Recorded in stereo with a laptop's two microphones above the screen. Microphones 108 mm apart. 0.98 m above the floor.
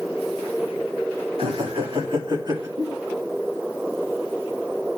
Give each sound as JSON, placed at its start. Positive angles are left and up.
{"t": 1.4, "sound": "laughter", "side_deg": -65, "distance_m": 3.0}
{"t": 2.8, "sound": "a giggle", "side_deg": -55, "distance_m": 3.5}